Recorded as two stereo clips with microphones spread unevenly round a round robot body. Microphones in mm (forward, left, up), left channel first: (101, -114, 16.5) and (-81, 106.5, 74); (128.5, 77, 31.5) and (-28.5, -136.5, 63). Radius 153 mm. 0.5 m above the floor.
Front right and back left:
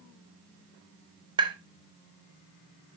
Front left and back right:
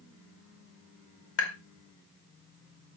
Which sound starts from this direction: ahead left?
Tapping, at 1.4 s.